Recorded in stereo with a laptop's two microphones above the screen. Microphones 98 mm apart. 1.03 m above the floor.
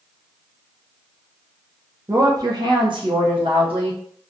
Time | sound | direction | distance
2.1 | a woman speaking | 30° right (ahead or behind) | 0.5 m